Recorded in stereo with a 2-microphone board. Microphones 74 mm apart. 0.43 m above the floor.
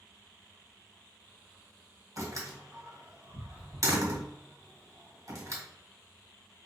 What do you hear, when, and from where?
2.2 s a door slam: 50° right (ahead or behind), 2 m